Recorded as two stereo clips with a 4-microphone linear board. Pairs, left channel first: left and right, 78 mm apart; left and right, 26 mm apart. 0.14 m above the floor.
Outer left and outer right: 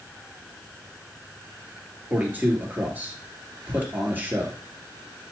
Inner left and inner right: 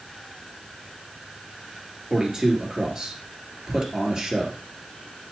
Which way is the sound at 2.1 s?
20° right (ahead or behind).